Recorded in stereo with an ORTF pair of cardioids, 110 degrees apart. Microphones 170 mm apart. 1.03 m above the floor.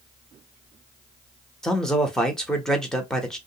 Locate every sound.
1.6 s a man speaking: 5° left, 0.9 m